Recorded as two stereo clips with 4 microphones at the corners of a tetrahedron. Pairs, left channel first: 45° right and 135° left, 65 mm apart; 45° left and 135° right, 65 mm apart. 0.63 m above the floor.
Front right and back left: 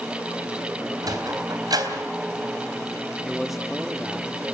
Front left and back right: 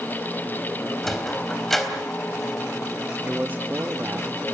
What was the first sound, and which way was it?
A sliding door, 130° left.